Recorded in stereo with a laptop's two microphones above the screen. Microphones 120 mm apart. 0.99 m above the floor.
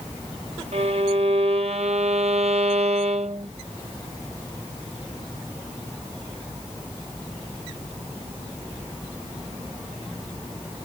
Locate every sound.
0.7 s a violin: 60° right (ahead or behind)